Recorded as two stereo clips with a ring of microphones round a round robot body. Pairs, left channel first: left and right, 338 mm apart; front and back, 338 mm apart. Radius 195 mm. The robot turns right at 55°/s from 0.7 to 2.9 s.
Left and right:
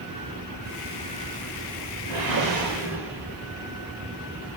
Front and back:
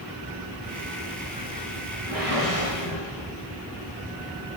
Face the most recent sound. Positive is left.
turn(degrees=-40)